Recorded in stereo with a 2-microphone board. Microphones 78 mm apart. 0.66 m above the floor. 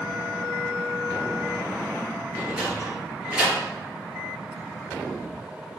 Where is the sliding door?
15° right (ahead or behind), 4.5 m.